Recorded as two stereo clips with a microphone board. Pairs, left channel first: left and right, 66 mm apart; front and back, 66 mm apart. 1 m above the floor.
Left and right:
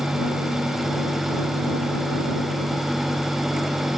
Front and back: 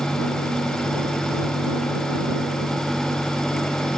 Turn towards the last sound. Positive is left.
No sound to turn to.